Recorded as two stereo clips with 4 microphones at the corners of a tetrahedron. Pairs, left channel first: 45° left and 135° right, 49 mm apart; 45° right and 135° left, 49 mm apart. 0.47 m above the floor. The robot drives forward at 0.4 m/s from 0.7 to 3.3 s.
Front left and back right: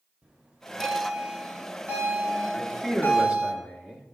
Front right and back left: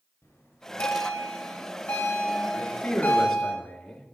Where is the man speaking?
50° right, 0.8 m; by 4.1 s 105° right, 0.8 m.